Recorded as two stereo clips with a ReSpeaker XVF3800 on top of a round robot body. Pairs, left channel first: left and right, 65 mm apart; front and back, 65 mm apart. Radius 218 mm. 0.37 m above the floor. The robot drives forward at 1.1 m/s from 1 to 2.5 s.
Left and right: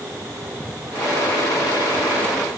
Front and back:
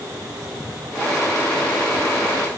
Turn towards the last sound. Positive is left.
No sound to turn to.